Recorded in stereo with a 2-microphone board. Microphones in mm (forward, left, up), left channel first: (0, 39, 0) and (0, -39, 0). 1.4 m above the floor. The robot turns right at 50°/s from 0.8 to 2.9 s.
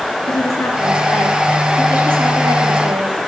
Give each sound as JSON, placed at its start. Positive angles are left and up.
{"t": 0.3, "sound": "a woman speaking", "azimuth_deg": 140, "distance_m": 2.5}